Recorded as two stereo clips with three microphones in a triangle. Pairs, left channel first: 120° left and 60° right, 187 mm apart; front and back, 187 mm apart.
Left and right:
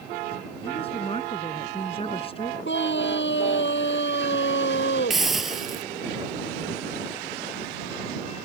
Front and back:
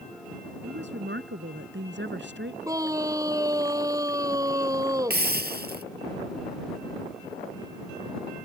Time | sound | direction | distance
0.6 | a woman speaking | straight behind | ?
2.6 | a scream | 110° left | ?
5.1 | a hiss | 150° right | ?